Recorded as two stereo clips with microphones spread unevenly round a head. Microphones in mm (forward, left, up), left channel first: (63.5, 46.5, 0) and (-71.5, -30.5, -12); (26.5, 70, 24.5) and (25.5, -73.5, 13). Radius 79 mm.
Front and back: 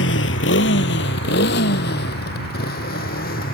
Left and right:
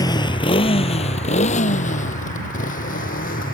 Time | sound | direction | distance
0.0 | a motorcycle | 25° left | ?